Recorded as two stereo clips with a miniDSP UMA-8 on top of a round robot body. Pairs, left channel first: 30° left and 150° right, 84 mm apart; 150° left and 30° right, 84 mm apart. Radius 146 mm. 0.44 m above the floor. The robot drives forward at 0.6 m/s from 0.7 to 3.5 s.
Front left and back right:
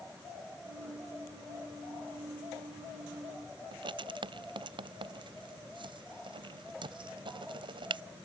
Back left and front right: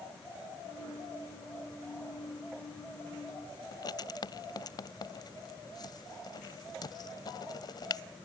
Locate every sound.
3.7 s writing: 170° right